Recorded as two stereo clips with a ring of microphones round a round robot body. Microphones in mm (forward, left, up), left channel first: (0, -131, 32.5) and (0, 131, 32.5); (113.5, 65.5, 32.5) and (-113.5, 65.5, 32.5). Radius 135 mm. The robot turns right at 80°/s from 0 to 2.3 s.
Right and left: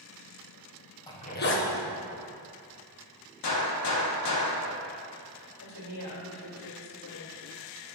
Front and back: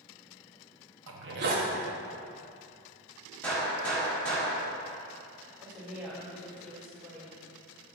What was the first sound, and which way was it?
A zipper, 165° right.